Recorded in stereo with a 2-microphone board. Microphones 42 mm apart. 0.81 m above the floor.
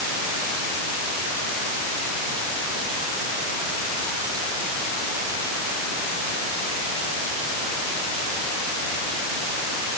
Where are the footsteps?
I don't hear footsteps.